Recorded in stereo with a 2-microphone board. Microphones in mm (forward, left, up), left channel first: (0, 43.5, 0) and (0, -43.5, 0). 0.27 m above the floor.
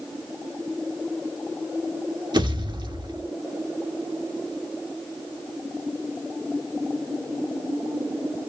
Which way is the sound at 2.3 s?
60° right (ahead or behind).